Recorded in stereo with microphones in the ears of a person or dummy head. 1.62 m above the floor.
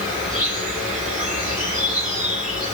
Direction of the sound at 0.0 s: Centre (ahead or behind).